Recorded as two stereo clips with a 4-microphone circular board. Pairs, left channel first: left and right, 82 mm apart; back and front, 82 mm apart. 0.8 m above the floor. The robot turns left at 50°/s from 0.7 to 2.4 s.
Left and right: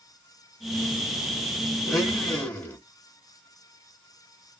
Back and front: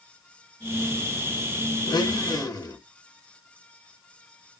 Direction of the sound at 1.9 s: Straight behind.